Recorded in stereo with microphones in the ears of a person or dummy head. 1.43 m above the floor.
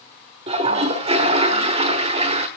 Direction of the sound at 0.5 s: 30° right (ahead or behind).